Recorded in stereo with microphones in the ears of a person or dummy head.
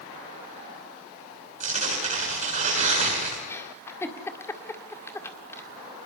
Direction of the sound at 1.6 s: 40° right (ahead or behind).